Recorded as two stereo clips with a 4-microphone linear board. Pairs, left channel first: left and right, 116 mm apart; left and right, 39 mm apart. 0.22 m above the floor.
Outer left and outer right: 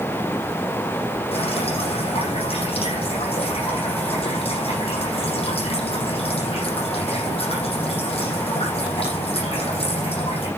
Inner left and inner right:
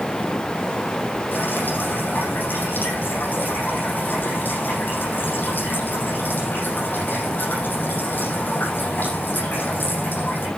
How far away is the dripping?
About 9 m.